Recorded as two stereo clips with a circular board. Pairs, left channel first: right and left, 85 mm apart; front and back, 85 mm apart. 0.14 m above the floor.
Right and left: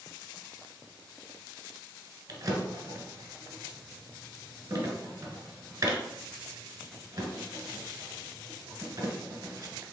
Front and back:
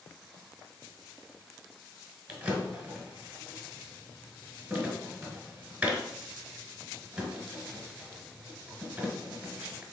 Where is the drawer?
115° left, 1.2 m.